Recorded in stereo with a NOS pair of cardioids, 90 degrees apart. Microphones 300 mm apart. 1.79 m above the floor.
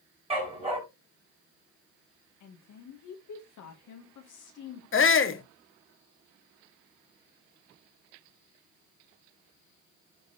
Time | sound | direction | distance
0.3 | a dog barking | 20° right | 5.5 m
2.4 | a woman speaking | 70° left | 2.5 m
4.9 | a shout | 40° left | 1.7 m